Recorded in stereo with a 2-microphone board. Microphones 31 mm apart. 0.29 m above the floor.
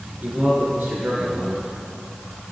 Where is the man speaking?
75° right (ahead or behind), 3.5 m.